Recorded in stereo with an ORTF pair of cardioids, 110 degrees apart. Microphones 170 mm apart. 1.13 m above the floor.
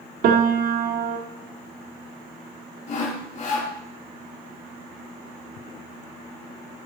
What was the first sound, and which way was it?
A piano, 65° right.